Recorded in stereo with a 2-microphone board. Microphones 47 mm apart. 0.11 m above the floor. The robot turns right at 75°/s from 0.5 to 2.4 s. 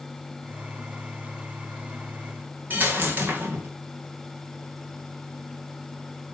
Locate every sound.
2.7 s a dropped coin: 40° right (ahead or behind), 2.5 m